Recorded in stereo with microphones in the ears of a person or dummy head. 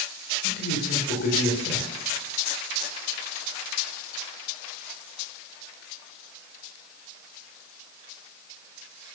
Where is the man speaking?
55° left (ahead or behind), 6 m.